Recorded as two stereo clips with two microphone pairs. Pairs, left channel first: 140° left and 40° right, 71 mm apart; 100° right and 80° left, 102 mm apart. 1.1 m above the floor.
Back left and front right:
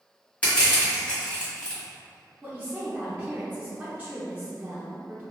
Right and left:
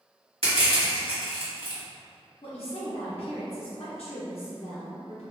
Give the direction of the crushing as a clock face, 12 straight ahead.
10 o'clock.